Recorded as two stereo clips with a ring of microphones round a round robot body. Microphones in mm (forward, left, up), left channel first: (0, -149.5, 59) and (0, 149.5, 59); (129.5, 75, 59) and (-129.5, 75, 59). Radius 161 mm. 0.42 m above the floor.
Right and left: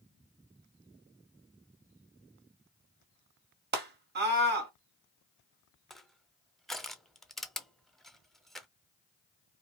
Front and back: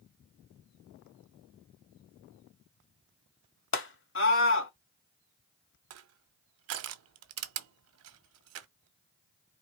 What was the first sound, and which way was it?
A scream, 35° left.